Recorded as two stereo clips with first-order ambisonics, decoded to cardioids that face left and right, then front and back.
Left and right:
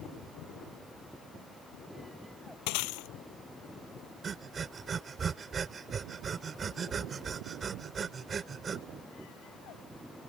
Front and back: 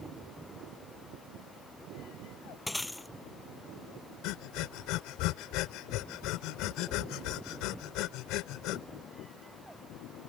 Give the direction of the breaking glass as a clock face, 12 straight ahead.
9 o'clock.